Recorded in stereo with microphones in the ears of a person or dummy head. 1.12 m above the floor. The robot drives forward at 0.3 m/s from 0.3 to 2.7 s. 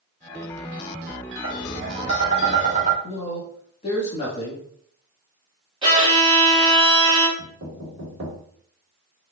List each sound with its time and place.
1.4 s tapping: 30° right (ahead or behind), 1.3 m; by 2.9 s 40° right (ahead or behind), 1.1 m
3.0 s a man speaking: 35° left (ahead or behind), 1.5 m
5.8 s a violin: 25° right (ahead or behind), 1.6 m
7.4 s knocking: 45° right (ahead or behind), 2 m